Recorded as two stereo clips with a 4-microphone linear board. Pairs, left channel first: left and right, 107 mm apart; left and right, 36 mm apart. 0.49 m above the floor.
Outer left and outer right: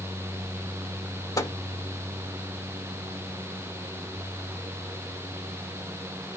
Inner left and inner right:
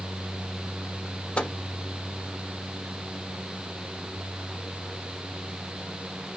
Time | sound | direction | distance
1.4 | a microwave | 35° left (ahead or behind) | 0.6 m